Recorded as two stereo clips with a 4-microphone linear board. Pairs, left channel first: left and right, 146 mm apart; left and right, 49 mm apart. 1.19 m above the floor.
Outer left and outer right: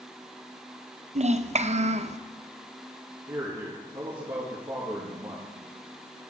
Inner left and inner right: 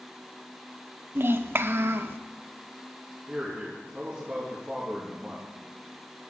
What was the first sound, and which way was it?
A child speaking, 45° right (ahead or behind).